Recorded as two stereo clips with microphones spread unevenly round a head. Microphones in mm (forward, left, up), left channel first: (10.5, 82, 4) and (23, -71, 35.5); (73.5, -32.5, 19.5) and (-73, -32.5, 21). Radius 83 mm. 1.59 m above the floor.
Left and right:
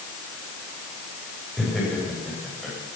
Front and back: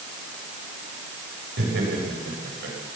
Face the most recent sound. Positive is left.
turn(degrees=-175)